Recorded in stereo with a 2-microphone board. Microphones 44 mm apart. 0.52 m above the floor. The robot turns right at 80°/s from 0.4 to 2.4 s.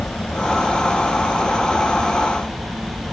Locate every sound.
0.0 s a helicopter: 145° left; by 3.1 s 55° right